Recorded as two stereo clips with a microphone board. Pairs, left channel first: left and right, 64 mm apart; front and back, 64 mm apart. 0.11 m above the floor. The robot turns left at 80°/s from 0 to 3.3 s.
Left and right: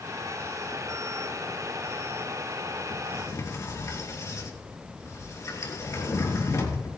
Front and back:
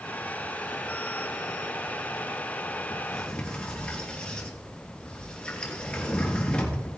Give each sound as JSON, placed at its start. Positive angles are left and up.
{"t": 2.9, "sound": "a sliding door", "azimuth_deg": 105, "distance_m": 3.0}